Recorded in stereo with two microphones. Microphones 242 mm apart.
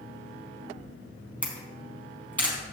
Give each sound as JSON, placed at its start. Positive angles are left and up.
{"t": 1.4, "sound": "a camera shutter", "side_deg": 5, "distance_m": 3.5}